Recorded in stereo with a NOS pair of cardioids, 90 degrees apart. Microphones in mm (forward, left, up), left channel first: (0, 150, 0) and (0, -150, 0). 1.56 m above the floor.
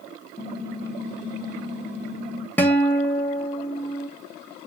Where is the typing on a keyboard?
30° left, 2 m.